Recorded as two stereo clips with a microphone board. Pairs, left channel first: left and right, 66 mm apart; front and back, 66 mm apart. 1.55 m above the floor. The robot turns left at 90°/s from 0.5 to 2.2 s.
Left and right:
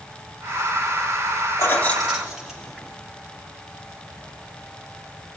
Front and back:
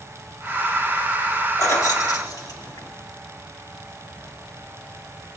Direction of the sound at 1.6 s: 45° left.